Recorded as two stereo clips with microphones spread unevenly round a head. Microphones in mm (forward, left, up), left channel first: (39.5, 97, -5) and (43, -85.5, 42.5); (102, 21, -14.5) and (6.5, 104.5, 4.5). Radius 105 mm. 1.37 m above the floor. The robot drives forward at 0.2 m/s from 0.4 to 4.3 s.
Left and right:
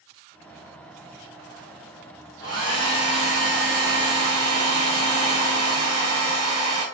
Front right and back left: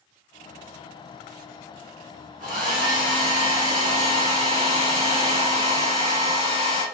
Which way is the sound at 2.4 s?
150° left.